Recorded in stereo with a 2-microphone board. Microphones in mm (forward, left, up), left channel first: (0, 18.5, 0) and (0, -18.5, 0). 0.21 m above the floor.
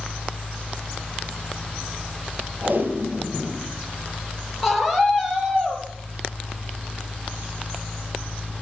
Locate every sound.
2.6 s tape being pulled: 60° right (ahead or behind), 5 m
4.6 s a scream: 5° right (ahead or behind), 5 m